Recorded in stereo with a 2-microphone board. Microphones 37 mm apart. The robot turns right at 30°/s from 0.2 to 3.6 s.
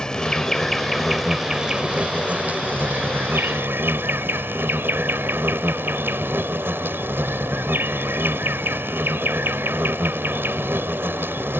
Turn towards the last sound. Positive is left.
turn(degrees=-100)